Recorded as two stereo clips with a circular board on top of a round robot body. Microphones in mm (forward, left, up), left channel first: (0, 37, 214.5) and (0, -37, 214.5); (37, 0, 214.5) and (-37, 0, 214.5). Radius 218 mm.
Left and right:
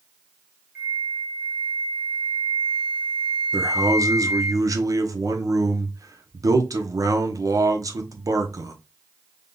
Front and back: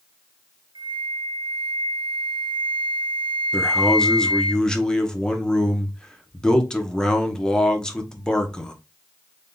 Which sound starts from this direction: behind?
A flute, at 0.8 s.